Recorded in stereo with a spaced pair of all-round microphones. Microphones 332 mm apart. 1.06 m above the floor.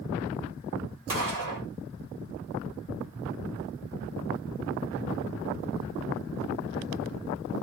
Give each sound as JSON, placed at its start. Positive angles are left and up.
{"t": 1.1, "sound": "a gunshot", "side_deg": -75, "distance_m": 1.5}